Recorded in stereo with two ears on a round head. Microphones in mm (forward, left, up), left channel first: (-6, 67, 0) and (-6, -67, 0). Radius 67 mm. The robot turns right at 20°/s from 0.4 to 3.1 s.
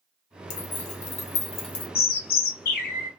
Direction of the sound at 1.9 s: 65° left (ahead or behind).